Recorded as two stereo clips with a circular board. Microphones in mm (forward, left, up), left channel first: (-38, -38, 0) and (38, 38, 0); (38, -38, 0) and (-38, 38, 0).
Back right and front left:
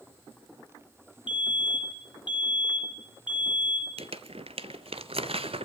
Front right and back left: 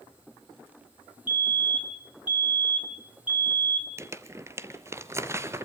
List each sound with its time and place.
1.3 s a fire alarm: 155° right, 3 m
4.0 s crumpling: 70° left, 1.1 m